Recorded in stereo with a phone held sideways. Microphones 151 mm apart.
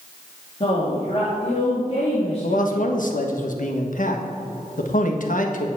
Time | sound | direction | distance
0.6 | a woman speaking | 40° left (ahead or behind) | 3 m
2.4 | a man speaking | 60° left (ahead or behind) | 1.5 m